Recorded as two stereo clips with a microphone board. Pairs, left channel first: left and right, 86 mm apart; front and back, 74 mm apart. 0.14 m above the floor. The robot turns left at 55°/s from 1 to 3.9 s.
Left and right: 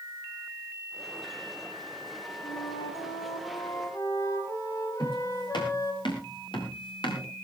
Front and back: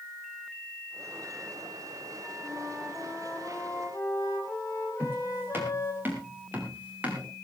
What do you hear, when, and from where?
2.4 s a flute: 125° left, 3.5 m; by 6.0 s 45° left, 3.5 m
5.0 s footsteps: 120° left, 7 m; by 7.3 s 110° left, 5.5 m